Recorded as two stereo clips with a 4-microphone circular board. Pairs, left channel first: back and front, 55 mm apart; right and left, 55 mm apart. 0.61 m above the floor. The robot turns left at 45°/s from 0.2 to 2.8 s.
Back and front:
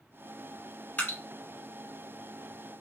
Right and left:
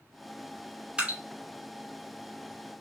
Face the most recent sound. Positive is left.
turn(degrees=65)